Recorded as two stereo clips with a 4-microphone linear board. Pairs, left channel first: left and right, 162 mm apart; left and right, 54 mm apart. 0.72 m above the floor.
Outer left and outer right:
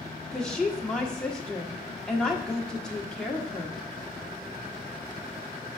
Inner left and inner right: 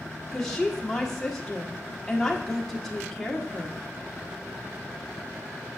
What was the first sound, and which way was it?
A woman speaking, 5° left (ahead or behind).